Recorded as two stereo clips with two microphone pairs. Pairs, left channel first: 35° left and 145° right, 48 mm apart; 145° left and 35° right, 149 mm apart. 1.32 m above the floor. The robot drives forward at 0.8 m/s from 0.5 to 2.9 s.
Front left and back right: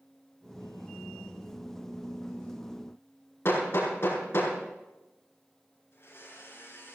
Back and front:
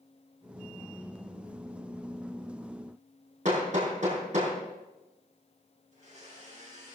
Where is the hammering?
Straight ahead, 6.5 m.